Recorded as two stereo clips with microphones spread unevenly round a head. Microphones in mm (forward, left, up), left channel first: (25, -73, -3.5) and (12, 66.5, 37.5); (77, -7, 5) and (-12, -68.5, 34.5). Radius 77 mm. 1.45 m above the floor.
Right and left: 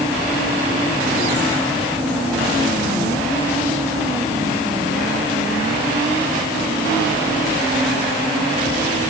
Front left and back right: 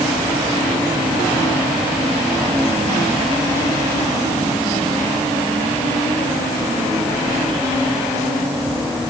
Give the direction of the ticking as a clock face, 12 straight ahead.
No ticking in this recording.